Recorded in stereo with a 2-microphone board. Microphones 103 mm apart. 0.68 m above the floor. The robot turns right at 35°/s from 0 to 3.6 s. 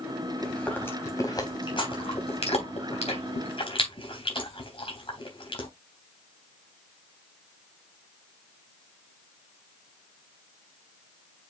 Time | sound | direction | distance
0.4 | chewing | 10° left (ahead or behind) | 3.5 m